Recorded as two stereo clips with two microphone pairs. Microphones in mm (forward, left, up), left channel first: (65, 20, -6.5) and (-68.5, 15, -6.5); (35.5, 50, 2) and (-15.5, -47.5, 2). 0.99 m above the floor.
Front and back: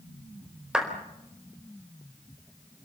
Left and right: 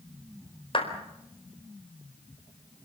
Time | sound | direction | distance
0.7 | a clap | 100° left | 4.5 m